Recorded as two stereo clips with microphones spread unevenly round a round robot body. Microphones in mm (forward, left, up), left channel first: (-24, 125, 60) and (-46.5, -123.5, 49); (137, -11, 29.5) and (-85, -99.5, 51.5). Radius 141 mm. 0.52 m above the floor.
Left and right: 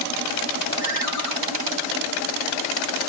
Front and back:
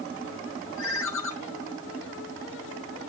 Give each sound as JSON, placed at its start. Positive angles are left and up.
{"t": 0.8, "sound": "a ringtone", "azimuth_deg": 55, "distance_m": 4.5}